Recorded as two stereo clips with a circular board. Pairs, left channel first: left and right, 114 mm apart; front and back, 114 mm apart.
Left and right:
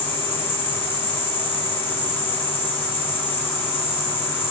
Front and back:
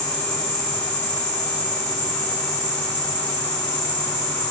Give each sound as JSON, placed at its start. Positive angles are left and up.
{"t": 0.0, "sound": "an insect", "azimuth_deg": 25, "distance_m": 2.0}